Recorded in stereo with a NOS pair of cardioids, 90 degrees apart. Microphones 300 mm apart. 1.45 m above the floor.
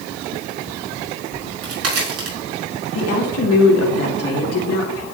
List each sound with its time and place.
1.3 s a crack: 50° right, 5 m
3.0 s a woman speaking: 55° left, 2.5 m